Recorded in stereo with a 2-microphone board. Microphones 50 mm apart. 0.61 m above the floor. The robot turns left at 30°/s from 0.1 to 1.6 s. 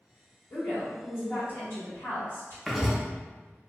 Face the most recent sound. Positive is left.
turn(degrees=-5)  # may be behind; listen again after turning